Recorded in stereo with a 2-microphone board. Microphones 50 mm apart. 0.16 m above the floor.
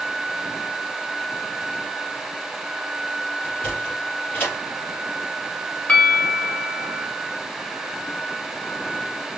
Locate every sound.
3.4 s a sliding door: 35° left (ahead or behind), 3.5 m
5.9 s a bell: 25° left (ahead or behind), 1.3 m